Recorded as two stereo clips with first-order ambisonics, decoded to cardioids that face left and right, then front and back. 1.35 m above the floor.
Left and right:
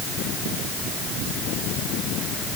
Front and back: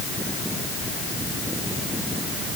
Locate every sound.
Only background noise.